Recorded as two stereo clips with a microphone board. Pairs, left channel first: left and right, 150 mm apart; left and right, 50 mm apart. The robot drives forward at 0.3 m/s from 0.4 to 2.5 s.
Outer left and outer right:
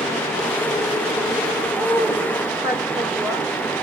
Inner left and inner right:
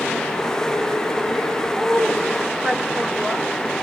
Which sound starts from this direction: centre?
A woman speaking, at 1.7 s.